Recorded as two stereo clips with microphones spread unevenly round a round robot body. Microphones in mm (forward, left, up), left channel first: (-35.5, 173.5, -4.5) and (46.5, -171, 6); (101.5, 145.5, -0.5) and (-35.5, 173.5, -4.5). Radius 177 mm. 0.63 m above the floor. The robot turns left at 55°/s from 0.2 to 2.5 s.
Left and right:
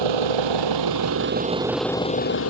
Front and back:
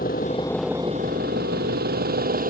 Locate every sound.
0.0 s an engine running: 80° right; by 2.5 s 155° left